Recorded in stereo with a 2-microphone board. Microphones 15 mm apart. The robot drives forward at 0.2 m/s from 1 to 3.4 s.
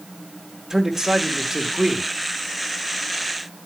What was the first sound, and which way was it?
A man speaking, 35° right (ahead or behind).